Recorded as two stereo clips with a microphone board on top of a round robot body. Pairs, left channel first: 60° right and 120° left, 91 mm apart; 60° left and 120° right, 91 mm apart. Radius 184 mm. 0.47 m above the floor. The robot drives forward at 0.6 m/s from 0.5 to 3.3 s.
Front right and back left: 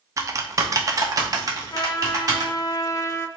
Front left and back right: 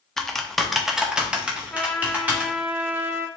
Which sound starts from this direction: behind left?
Typing on a keyboard, at 0.2 s.